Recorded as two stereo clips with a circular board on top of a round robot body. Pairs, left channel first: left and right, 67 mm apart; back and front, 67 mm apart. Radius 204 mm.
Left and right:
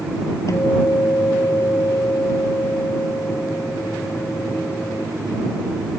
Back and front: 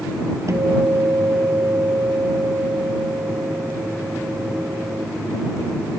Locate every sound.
0.5 s a guitar: 45° left